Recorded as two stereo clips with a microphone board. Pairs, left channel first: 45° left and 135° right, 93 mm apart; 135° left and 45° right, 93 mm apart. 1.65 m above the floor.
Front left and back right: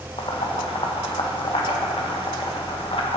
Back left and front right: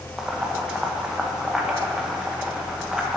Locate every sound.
0.2 s boiling: 40° left, 1.6 m